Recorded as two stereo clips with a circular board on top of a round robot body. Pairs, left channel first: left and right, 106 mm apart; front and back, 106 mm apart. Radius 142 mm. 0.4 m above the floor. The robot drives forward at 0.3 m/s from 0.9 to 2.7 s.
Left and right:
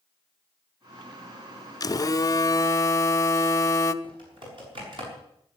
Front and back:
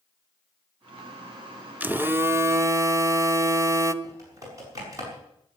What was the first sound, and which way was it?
A phone buzzing, 115° left.